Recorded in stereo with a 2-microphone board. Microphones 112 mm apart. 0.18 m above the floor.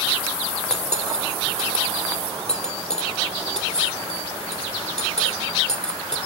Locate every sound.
0.7 s cutlery clinking: 75° left (ahead or behind), 3 m